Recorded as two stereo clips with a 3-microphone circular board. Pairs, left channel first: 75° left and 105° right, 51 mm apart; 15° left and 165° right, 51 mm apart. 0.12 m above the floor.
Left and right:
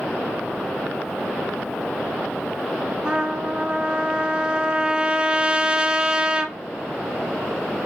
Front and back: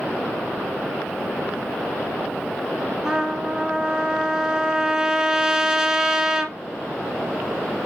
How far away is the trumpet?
About 1.0 m.